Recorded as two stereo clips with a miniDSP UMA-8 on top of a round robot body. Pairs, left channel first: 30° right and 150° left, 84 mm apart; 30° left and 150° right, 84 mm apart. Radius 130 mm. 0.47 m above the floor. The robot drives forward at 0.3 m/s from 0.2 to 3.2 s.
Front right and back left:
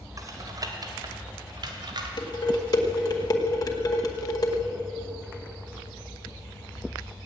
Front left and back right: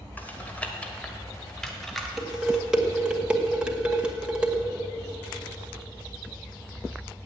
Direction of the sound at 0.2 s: 100° left.